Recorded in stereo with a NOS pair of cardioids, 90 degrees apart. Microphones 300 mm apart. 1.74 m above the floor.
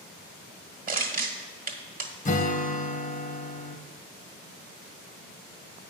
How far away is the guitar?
About 1.3 m.